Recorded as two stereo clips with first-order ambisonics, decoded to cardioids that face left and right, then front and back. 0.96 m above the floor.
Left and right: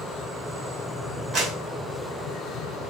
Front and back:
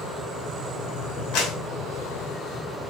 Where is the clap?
25° right, 5.5 m.